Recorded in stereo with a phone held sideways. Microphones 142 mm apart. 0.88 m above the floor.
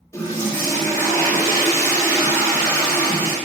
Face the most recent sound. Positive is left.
turn(degrees=20)  # may be behind; listen again after turning